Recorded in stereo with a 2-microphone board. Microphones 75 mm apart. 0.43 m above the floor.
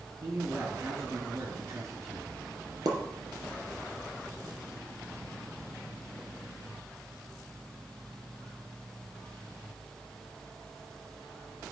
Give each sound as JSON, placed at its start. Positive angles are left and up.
{"t": 0.2, "sound": "a man speaking", "side_deg": -40, "distance_m": 4.0}
{"t": 2.9, "sound": "a pop", "side_deg": -60, "distance_m": 3.0}